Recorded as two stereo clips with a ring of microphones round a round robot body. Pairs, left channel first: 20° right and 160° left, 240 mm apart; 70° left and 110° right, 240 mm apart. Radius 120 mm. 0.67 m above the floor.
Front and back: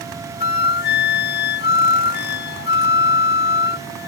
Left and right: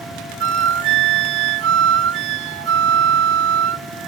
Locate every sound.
0.4 s a flute: 70° right